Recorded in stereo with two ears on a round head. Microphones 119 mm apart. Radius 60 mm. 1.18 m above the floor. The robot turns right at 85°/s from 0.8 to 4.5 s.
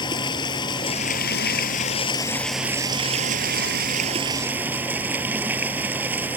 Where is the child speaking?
No child speaking in this recording.